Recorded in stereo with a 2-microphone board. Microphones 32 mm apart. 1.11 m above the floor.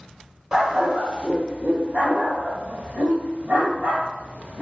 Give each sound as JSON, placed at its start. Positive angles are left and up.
{"t": 0.5, "sound": "a dog barking", "side_deg": -25, "distance_m": 1.5}